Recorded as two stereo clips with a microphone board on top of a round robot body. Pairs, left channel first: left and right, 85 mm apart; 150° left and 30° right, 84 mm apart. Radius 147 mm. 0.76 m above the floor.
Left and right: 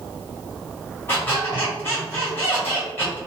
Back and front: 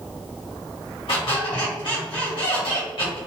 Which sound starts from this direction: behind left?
A squeak, at 1.1 s.